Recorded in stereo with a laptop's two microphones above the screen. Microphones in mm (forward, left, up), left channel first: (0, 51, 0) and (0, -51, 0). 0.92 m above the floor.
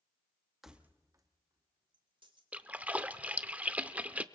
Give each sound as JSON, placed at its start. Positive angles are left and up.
{"t": 0.6, "sound": "keys jangling", "side_deg": -5, "distance_m": 0.7}
{"t": 2.5, "sound": "a splash", "side_deg": -15, "distance_m": 0.5}